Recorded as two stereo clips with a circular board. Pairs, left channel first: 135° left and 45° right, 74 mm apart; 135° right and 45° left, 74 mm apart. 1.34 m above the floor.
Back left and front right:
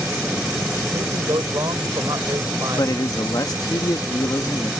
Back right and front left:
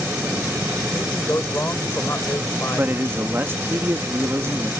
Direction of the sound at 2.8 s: 105° left.